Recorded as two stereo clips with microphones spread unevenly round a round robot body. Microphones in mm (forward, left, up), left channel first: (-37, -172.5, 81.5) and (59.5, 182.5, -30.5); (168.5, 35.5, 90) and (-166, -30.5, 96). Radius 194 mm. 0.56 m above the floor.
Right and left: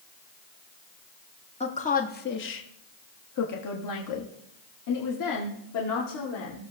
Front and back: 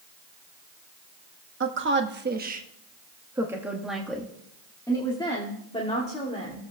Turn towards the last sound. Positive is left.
turn(degrees=-55)